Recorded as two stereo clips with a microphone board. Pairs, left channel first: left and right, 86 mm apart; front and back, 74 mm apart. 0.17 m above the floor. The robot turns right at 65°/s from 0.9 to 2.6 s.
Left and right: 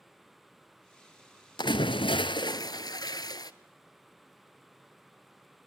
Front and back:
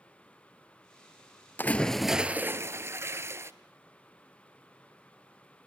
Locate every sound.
1.6 s a splash: 60° left, 0.7 m; by 3.5 s 125° left, 0.7 m